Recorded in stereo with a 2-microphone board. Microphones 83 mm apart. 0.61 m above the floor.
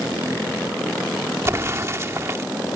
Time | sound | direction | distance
1.4 | an explosion | 35° right (ahead or behind) | ?